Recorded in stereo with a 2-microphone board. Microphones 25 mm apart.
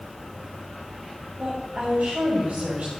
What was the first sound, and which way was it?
A woman speaking, 70° right (ahead or behind).